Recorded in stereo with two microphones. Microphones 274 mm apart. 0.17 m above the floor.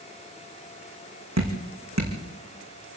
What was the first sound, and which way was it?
Dripping, 75° right (ahead or behind).